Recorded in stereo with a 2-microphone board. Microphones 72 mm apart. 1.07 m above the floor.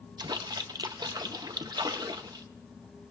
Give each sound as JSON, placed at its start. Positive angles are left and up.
{"t": 0.2, "sound": "a splash", "side_deg": -70, "distance_m": 0.6}